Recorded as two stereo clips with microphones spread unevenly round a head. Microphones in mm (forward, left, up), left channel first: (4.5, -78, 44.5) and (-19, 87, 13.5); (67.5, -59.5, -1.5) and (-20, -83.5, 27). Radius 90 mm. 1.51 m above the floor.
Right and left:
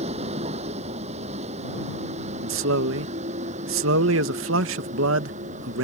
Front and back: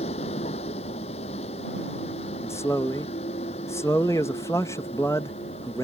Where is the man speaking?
95° left.